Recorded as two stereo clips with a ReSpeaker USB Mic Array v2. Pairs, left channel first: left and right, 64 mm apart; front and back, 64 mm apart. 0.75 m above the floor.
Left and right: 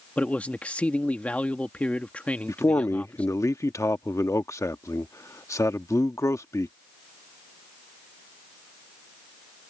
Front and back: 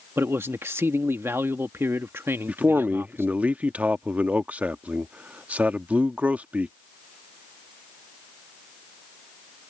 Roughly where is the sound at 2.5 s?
Behind left.